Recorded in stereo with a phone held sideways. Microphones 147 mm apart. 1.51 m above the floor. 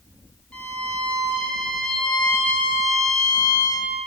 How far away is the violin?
About 1.3 m.